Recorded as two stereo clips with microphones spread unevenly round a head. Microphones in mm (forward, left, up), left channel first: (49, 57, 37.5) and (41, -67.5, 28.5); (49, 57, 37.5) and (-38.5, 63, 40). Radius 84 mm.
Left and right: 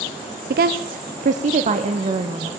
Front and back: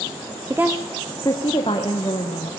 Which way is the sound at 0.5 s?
115° right.